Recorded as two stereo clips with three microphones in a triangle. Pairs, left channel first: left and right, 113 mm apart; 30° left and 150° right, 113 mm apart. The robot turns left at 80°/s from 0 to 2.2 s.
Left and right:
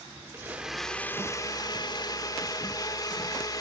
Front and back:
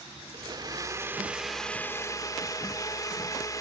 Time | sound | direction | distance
0.3 | a blender | 145° right | 1.5 m